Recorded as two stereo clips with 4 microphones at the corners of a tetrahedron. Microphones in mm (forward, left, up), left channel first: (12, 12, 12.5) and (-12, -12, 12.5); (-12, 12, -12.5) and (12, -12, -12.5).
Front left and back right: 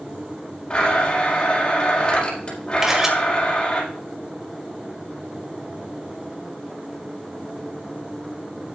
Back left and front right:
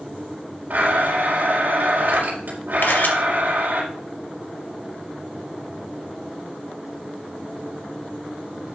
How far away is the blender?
About 5 m.